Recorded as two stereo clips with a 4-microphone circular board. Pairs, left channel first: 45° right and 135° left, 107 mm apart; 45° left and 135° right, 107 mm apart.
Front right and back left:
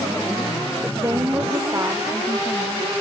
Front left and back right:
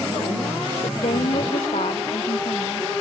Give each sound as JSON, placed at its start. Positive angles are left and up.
{"t": 0.8, "sound": "a woman speaking", "azimuth_deg": 70}